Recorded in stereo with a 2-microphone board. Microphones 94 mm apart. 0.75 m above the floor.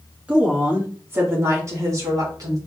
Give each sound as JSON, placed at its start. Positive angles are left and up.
{"t": 0.3, "sound": "a woman speaking", "side_deg": -15, "distance_m": 1.8}